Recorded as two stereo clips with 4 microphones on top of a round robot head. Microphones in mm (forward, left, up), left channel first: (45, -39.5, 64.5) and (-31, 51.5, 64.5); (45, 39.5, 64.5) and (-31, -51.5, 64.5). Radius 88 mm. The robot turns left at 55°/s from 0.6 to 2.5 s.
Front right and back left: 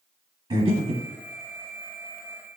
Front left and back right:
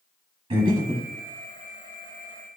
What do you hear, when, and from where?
0.5 s breathing: 175° right, 0.8 m; by 1.1 s 155° left, 0.8 m